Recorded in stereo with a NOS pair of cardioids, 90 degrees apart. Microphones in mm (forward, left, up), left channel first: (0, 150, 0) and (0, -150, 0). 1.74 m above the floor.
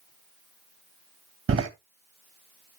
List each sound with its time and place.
1.5 s a door slam: 45° right, 2 m